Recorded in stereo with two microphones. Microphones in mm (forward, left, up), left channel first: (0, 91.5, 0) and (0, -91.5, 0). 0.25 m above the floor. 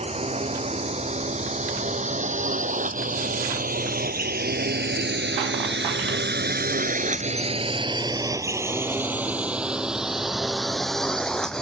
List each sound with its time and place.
0.0 s a drone: 35° right (ahead or behind); by 11.6 s 5° left (ahead or behind)